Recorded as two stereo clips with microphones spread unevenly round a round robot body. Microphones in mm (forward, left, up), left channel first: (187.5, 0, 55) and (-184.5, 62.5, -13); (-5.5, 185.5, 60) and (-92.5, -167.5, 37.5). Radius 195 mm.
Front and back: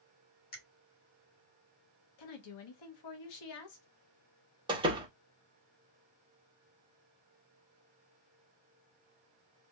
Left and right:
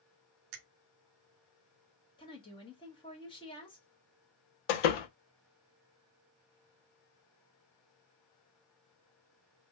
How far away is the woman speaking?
About 1.1 m.